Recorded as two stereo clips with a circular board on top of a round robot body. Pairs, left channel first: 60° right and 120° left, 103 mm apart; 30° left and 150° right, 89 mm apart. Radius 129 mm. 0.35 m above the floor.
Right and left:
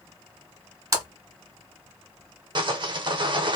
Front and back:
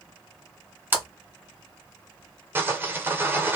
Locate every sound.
0.9 s a splash: 155° left, 1.3 m
2.5 s sawing: 150° left, 0.9 m